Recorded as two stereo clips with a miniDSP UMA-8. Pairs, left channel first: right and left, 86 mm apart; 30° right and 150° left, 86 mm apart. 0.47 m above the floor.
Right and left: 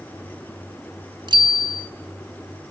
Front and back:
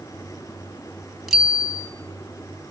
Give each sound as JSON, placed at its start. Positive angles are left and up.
{"t": 1.3, "sound": "a bicycle bell", "azimuth_deg": 60, "distance_m": 2.5}